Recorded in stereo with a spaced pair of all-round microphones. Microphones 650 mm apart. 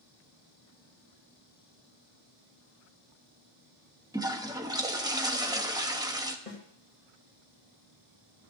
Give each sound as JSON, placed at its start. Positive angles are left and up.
{"t": 4.1, "sound": "a toilet flushing", "side_deg": -5, "distance_m": 1.2}
{"t": 6.5, "sound": "a snare drum", "side_deg": 60, "distance_m": 2.5}